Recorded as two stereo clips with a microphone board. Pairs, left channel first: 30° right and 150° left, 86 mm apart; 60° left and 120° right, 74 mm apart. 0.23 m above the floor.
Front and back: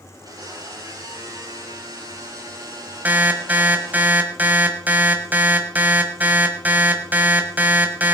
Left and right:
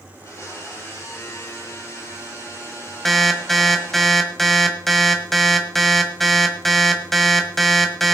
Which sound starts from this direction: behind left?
An alarm, at 3.0 s.